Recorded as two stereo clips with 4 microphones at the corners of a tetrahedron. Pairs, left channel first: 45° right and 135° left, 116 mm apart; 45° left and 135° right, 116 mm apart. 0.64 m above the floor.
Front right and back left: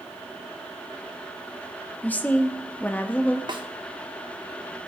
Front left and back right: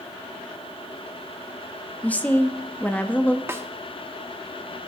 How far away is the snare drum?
About 1.2 m.